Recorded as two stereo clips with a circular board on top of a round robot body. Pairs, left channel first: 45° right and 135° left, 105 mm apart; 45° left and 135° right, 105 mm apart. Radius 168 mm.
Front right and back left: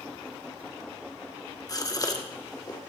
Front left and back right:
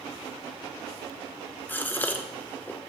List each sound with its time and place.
1.7 s a gasp: 15° right, 1.7 m